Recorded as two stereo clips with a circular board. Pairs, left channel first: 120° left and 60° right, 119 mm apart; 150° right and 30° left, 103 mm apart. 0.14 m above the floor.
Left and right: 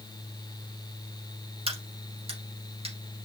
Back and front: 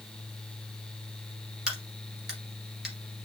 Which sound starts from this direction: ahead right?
A crack, at 1.7 s.